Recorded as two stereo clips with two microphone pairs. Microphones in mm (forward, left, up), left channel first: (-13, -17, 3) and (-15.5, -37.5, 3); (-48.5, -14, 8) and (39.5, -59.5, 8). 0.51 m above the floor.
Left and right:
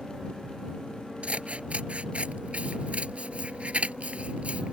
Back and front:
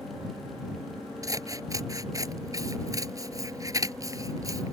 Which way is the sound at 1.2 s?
80° right.